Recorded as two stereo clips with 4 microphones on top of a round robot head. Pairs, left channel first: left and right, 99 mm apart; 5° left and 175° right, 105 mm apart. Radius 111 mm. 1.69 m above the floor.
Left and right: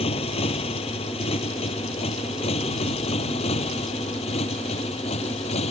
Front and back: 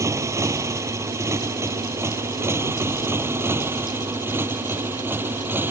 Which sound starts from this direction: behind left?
A motorcycle, at 0.0 s.